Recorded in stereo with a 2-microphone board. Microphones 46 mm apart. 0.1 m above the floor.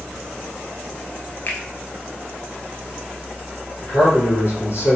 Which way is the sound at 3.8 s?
55° left (ahead or behind).